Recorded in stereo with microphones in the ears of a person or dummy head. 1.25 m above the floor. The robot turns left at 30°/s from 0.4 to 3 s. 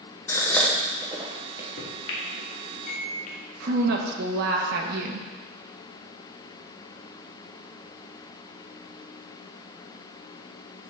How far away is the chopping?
No chopping in this recording.